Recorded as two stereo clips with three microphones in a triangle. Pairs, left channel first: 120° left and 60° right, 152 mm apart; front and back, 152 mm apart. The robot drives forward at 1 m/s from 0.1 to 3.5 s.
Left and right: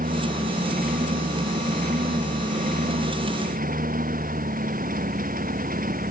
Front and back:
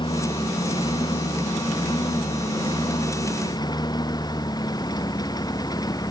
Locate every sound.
0.0 s a lawn mower: 55° right; by 6.1 s 65° right